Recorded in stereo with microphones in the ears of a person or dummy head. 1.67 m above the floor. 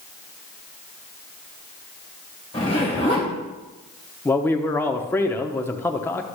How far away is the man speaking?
About 0.8 m.